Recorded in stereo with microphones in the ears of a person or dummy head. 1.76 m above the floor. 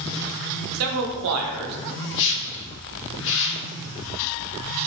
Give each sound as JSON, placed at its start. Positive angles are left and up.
{"t": 0.7, "sound": "a man speaking", "side_deg": -80, "distance_m": 0.6}
{"t": 2.1, "sound": "a whoosh", "side_deg": 70, "distance_m": 0.7}